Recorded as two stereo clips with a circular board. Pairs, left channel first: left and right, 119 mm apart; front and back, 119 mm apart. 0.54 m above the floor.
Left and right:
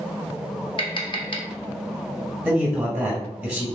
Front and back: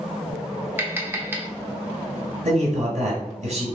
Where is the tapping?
115° left, 1.0 m.